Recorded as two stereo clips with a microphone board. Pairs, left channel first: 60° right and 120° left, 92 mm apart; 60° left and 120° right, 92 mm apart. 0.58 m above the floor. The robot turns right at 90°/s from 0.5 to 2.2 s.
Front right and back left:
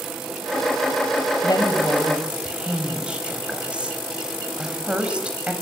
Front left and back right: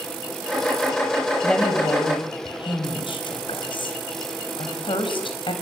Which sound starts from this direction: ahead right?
A woman speaking, at 1.4 s.